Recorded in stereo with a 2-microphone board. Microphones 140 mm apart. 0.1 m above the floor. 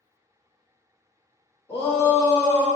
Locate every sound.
1.7 s a shout: 45° left (ahead or behind), 1.5 m